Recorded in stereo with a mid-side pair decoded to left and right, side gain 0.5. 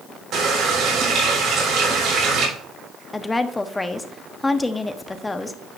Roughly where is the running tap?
Right.